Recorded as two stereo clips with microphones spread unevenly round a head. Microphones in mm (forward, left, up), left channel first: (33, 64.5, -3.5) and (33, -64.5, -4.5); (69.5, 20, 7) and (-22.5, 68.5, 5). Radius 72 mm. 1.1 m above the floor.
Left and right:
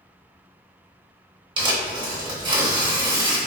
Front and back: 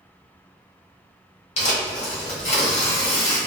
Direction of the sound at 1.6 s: 40° right.